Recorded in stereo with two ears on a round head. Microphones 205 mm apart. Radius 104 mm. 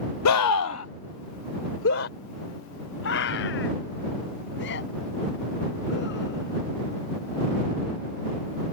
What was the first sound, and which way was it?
A scream, 80° left.